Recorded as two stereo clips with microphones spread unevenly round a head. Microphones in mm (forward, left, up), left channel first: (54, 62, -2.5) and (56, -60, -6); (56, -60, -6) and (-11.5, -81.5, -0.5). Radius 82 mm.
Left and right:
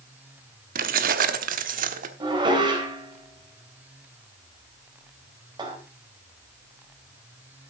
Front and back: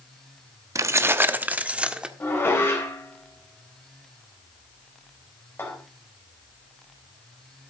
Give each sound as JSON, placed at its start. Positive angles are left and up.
{"t": 0.8, "sound": "keys jangling", "azimuth_deg": -120, "distance_m": 0.8}
{"t": 2.2, "sound": "dishes clattering", "azimuth_deg": -35, "distance_m": 3.5}